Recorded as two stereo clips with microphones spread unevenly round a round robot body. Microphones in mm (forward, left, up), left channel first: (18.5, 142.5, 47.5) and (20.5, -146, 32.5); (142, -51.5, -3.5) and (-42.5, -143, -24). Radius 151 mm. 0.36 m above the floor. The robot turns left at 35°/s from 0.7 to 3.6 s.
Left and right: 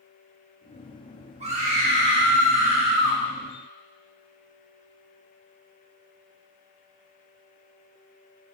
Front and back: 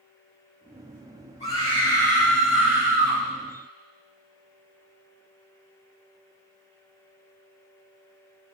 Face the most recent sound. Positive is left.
turn(degrees=-105)